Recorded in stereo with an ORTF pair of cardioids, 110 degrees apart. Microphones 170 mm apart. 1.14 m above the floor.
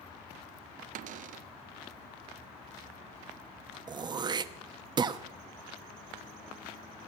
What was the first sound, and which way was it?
A cupboard door, 55° right.